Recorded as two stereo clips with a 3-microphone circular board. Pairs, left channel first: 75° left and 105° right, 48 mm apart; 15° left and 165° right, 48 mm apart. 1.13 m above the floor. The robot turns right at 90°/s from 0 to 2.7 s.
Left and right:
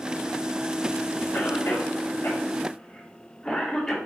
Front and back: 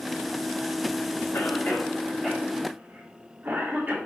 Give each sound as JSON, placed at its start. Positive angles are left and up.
{"t": 1.3, "sound": "a cough", "azimuth_deg": 30, "distance_m": 2.5}